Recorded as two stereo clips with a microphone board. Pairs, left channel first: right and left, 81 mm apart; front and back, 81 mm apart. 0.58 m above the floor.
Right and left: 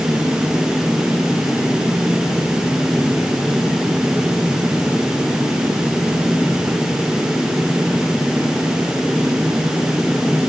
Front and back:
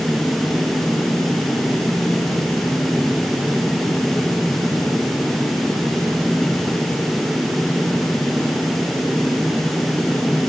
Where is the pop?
No pop in this recording.